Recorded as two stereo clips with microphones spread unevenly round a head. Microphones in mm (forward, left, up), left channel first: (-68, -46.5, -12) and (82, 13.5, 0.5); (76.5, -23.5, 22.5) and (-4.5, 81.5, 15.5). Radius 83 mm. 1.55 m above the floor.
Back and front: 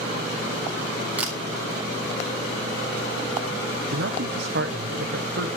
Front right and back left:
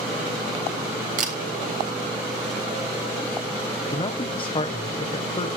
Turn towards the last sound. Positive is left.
turn(degrees=0)